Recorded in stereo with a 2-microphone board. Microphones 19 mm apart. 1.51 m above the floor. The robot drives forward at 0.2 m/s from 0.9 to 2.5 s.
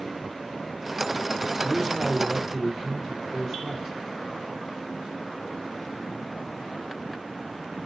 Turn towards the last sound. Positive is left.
turn(degrees=-15)  # may be behind; listen again after turning